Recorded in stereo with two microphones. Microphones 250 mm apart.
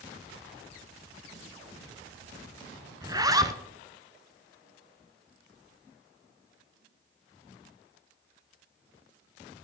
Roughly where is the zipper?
Centre.